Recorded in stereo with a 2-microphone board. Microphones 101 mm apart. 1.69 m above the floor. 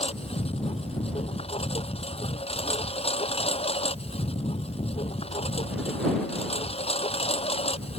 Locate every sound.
0.0 s a lawn mower: 80° left